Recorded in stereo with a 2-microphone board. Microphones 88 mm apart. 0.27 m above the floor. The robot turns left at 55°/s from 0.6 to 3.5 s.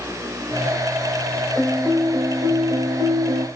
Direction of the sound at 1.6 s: 15° left.